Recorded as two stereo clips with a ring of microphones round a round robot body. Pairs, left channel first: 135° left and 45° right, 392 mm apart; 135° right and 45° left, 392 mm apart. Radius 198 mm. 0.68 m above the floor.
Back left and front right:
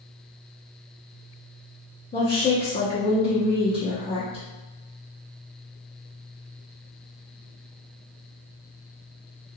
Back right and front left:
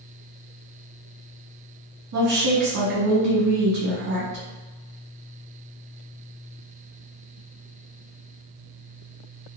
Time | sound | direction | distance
2.1 | a woman speaking | 65° left | 1.1 m